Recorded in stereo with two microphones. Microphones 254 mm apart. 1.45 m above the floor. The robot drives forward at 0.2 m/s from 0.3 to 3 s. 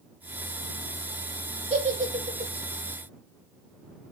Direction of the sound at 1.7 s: 25° right (ahead or behind).